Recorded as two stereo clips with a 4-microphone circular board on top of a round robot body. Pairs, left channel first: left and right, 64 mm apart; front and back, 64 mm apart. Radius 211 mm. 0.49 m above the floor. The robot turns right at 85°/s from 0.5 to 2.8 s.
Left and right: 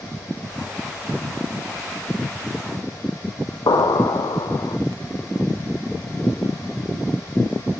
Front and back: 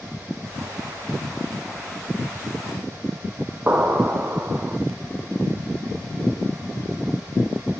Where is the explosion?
115° left, 0.5 m.